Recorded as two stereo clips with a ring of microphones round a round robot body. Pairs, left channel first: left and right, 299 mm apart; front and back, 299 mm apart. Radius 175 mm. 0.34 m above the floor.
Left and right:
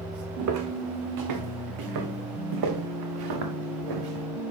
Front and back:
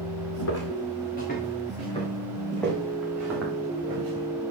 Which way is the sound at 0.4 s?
55° right.